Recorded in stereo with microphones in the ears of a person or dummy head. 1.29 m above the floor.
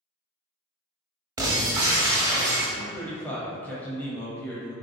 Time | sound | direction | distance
1.4 | breaking glass | 15° right (ahead or behind) | 0.9 m
2.8 | a man speaking | 5° left (ahead or behind) | 0.7 m